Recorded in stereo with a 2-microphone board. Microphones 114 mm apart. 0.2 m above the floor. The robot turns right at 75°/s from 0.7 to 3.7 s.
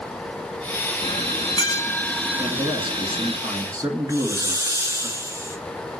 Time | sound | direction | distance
1.0 | a bell | 90° left | 0.9 m
2.4 | a man speaking | 140° right | 2.5 m
4.1 | a hiss | 25° right (ahead or behind) | 1.3 m